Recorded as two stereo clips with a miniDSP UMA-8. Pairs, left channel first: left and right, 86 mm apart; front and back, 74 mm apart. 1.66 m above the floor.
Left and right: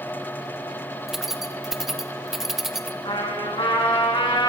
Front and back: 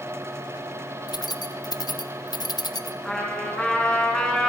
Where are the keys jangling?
5° right, 1.1 m.